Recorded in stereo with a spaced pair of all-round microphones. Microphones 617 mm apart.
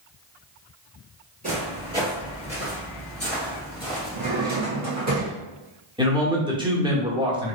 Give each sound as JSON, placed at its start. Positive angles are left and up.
{"t": 1.4, "sound": "footsteps", "side_deg": -15, "distance_m": 1.9}
{"t": 4.1, "sound": "a drawer", "side_deg": -25, "distance_m": 1.0}
{"t": 6.0, "sound": "a man speaking", "side_deg": -10, "distance_m": 0.7}